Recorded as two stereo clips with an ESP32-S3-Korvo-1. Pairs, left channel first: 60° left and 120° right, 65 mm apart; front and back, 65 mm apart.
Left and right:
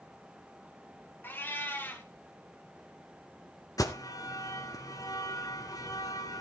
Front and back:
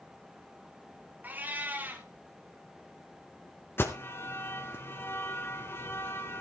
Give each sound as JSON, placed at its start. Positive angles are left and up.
{"t": 1.2, "sound": "a cat meowing", "azimuth_deg": 115, "distance_m": 2.0}
{"t": 3.8, "sound": "an alarm", "azimuth_deg": 50, "distance_m": 1.7}